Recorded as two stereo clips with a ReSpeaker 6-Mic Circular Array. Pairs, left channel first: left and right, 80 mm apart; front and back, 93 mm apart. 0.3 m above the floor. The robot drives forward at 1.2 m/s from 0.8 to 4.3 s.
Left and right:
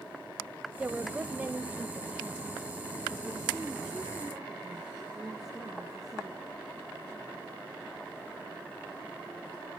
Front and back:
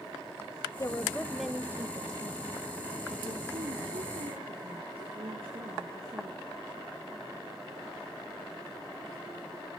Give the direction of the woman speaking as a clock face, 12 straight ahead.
1 o'clock.